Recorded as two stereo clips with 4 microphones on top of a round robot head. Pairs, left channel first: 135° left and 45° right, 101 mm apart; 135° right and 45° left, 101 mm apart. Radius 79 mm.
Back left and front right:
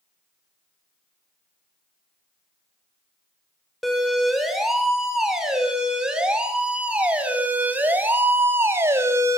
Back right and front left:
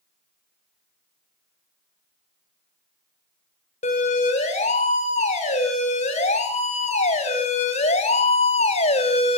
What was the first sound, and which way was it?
A siren, 135° right.